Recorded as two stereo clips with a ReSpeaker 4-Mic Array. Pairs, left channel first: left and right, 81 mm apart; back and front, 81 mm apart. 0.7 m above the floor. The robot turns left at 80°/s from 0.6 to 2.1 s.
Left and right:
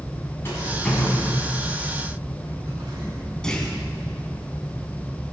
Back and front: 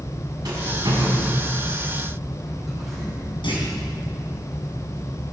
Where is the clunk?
175° left, 3.5 m.